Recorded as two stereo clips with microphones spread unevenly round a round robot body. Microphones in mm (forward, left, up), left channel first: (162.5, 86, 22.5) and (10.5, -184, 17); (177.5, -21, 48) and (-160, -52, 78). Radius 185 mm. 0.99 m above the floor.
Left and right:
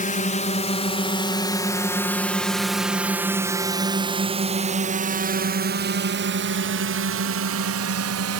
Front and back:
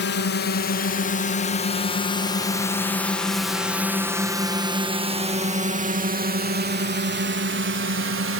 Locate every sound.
0.0 s a drone: 15° left; by 8.4 s 135° right